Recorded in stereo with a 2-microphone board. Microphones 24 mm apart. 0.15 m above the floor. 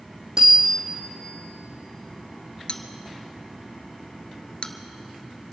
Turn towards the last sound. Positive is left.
turn(degrees=50)  # may be behind; listen again after turning